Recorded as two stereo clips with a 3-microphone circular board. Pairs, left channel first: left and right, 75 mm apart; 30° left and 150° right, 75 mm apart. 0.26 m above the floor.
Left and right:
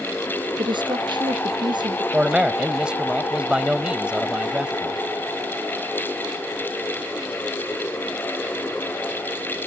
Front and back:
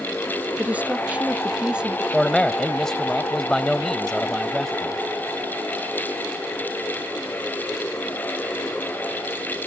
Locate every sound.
0.6 s a woman speaking: 80° right; by 2.0 s 70° right
2.1 s a man speaking: 40° right